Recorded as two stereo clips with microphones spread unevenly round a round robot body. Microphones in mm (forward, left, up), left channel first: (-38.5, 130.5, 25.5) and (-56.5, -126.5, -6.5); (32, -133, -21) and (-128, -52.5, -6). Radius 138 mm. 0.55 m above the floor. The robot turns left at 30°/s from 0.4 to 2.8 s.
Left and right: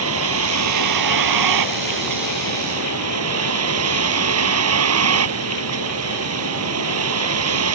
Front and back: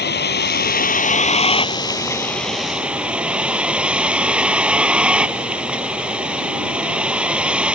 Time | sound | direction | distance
0.0 | a vehicle | 50° right | ?